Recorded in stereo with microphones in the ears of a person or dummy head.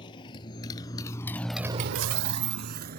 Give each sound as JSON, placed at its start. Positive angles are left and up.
{"t": 0.0, "sound": "a motorcycle", "side_deg": 30}